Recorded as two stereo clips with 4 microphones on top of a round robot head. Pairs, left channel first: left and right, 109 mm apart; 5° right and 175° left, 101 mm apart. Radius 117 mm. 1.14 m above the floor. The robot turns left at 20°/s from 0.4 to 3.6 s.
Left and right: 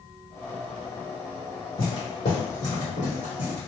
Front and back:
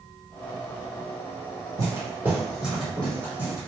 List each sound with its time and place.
1.8 s footsteps: 125° left, 1.9 m; by 3.7 s 45° left, 1.8 m